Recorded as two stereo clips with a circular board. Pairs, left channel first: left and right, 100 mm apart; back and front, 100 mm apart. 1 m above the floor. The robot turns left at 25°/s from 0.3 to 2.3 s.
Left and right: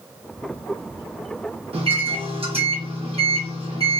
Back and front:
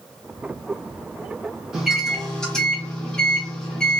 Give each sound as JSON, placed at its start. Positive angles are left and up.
{"t": 1.7, "sound": "a microwave", "azimuth_deg": -85, "distance_m": 0.8}